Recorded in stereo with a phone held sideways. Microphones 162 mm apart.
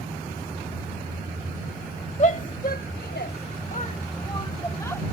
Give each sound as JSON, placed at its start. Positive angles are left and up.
{"t": 2.2, "sound": "a shout", "side_deg": 45}